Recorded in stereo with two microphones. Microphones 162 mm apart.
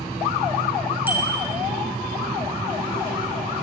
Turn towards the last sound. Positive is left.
turn(degrees=-10)  # may be behind; listen again after turning